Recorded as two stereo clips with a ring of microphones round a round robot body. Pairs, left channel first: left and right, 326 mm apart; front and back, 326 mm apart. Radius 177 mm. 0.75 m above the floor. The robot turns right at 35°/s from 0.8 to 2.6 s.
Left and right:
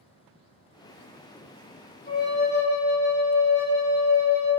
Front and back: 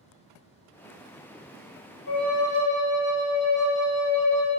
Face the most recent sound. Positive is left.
turn(degrees=45)